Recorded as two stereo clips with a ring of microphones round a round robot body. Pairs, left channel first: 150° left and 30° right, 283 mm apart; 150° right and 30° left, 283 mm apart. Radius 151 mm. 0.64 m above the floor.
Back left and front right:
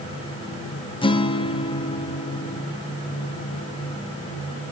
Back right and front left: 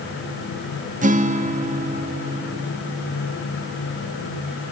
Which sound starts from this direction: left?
A guitar, at 1.0 s.